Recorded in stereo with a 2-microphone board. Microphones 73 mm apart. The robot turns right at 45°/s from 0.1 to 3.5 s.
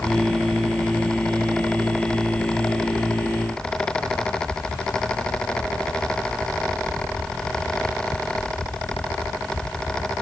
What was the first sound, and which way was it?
Only background noise.